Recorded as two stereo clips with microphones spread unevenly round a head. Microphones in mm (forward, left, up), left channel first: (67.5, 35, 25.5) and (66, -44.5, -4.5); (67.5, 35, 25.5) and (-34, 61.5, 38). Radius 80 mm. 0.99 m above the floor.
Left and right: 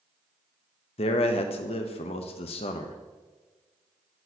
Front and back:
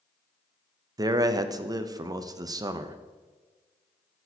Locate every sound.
1.0 s a man speaking: 110° left, 0.6 m